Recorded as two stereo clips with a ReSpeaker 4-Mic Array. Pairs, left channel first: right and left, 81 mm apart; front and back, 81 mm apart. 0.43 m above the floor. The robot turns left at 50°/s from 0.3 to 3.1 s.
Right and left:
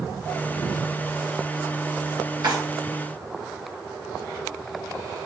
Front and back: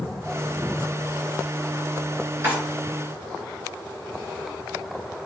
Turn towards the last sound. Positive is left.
turn(degrees=85)